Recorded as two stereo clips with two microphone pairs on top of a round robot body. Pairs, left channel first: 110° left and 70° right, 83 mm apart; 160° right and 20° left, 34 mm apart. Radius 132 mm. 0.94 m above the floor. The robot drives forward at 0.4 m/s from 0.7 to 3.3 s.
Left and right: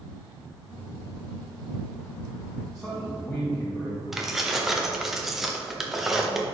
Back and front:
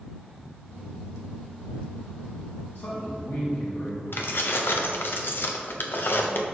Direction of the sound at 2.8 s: 160° right.